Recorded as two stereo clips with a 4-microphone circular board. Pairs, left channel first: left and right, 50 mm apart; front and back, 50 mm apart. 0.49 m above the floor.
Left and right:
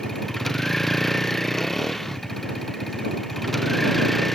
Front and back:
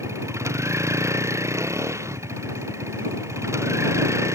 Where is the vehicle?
175° left.